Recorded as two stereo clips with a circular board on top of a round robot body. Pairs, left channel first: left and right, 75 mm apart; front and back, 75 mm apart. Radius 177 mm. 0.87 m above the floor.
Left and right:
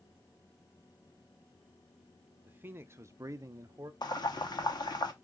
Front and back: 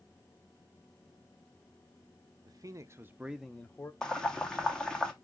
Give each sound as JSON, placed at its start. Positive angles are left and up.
{"t": 2.5, "sound": "a man speaking", "azimuth_deg": -155, "distance_m": 1.0}
{"t": 4.0, "sound": "boiling", "azimuth_deg": 80, "distance_m": 1.3}